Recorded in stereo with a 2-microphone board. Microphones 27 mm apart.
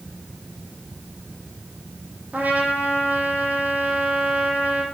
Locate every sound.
2.3 s a trumpet: 85° right, 3 m